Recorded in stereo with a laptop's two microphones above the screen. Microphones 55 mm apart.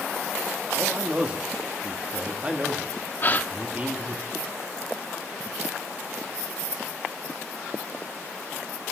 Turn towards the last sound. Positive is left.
turn(degrees=40)  # may be behind; listen again after turning